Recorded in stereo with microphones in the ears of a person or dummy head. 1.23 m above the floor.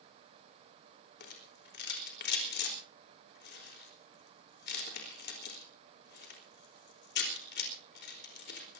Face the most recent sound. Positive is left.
turn(degrees=55)  # may be behind; listen again after turning